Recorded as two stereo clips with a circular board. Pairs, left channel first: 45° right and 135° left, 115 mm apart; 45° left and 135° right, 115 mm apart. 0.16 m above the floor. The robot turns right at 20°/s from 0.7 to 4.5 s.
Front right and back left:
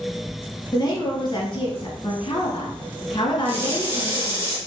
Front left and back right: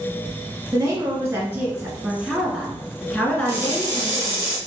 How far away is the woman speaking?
About 2 m.